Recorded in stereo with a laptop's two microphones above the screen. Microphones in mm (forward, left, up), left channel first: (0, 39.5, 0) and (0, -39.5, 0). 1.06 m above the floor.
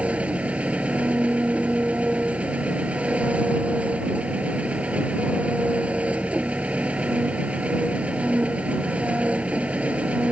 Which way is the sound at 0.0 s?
15° right (ahead or behind).